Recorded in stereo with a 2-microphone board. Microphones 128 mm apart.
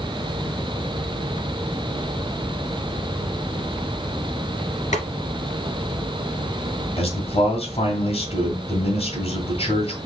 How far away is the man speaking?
About 2 m.